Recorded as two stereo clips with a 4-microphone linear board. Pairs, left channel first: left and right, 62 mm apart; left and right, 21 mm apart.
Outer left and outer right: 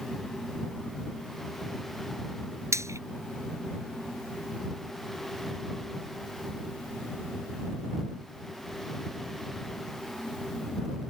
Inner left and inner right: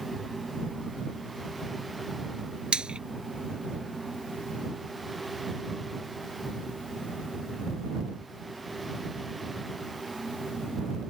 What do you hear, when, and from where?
2.7 s frying: 55° right (ahead or behind)